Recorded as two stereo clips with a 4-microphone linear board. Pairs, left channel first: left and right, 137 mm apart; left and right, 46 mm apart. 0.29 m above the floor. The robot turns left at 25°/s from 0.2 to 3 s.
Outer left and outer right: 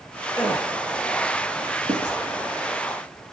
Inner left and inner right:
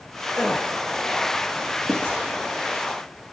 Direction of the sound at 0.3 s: 10° left (ahead or behind).